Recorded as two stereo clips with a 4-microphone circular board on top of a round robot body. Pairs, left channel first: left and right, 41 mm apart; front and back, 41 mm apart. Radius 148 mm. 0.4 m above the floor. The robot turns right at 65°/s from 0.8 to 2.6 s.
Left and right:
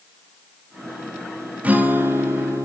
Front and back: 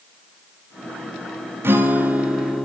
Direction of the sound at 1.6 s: 150° right.